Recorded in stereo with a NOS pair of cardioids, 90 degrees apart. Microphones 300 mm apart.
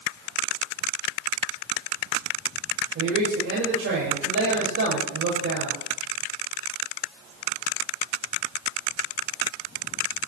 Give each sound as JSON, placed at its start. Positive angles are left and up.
{"t": 3.0, "sound": "a man speaking", "azimuth_deg": -50, "distance_m": 5.0}